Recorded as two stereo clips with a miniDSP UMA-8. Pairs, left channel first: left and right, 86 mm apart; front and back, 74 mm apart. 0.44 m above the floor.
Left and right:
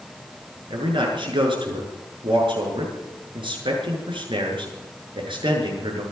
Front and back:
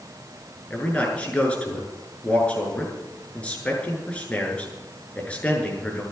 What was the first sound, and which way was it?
A man speaking, 75° right.